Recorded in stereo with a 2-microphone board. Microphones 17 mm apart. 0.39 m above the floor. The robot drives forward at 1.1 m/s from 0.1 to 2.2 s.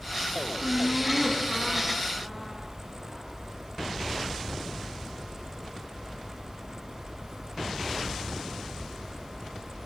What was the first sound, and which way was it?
Laughter, 15° left (ahead or behind).